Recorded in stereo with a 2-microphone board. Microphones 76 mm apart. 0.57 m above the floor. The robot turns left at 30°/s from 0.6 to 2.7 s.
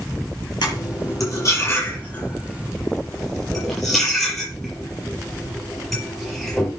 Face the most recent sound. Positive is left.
turn(degrees=0)  # may be behind; listen again after turning